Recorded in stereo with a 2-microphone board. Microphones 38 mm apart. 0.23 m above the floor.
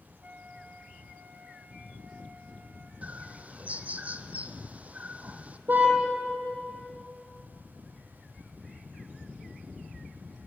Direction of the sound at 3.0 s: 40° right (ahead or behind).